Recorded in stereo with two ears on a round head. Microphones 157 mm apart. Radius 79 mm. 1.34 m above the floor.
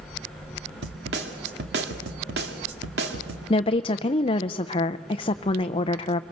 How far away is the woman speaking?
About 0.5 m.